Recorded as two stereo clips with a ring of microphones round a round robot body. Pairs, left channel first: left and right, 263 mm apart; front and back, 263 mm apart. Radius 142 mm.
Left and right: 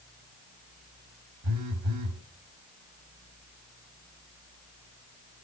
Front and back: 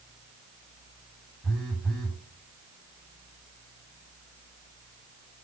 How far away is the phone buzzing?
About 1.5 m.